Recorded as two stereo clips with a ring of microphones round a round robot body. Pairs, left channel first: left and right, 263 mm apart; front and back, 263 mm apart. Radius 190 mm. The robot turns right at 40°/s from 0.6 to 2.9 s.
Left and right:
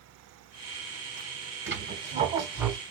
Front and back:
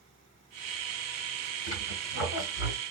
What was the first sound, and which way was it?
A squeak, 45° right.